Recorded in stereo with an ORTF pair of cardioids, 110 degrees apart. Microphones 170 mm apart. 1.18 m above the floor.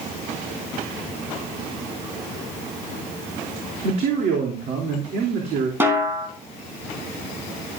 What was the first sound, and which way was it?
A man speaking, 65° right.